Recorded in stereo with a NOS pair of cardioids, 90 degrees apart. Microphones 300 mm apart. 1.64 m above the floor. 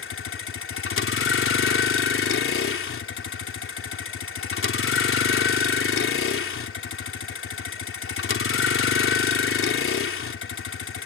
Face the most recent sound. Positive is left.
turn(degrees=45)